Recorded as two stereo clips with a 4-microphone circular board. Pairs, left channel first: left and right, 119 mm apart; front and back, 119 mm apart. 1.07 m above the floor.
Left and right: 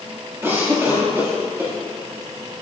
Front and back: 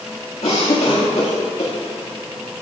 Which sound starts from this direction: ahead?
A cough, at 0.4 s.